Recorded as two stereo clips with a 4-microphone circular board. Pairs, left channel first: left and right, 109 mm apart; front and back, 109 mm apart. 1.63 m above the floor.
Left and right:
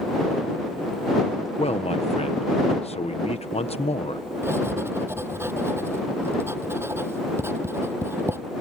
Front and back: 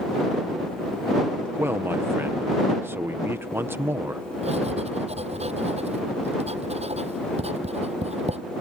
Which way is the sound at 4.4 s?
160° right.